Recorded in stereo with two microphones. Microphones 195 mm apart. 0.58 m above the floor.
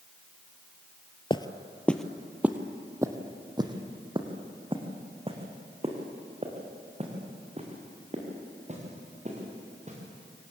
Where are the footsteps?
25° left (ahead or behind), 0.8 m; by 10.0 s 35° right (ahead or behind), 5.5 m.